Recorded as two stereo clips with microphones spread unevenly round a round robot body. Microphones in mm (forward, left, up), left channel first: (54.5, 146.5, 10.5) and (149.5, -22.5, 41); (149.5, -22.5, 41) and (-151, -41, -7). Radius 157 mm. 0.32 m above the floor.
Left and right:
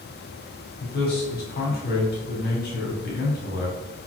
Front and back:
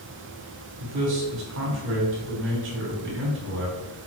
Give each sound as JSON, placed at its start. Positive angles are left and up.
{"t": 0.8, "sound": "a man speaking", "azimuth_deg": 145, "distance_m": 3.0}